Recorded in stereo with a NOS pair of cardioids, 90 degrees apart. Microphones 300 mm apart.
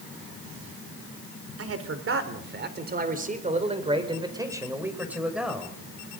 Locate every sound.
1.6 s a man speaking: 50° right, 4 m; by 5.7 s straight ahead, 5.5 m